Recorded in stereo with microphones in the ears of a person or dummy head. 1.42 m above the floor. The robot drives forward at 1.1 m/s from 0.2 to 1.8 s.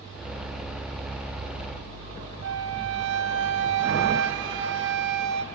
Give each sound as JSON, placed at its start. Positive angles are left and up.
{"t": 2.4, "sound": "a flute", "side_deg": -70, "distance_m": 0.9}